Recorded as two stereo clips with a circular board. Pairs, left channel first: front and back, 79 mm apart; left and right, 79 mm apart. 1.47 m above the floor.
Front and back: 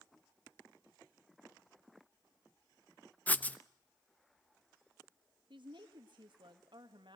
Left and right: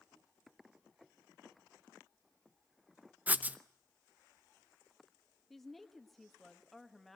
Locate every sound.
3.3 s writing: 50° right, 0.6 m
5.5 s a woman speaking: straight behind, 1.5 m